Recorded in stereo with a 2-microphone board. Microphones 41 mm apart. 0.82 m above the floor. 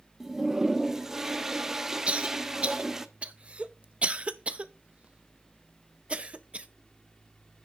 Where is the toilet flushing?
15° right (ahead or behind), 0.5 m.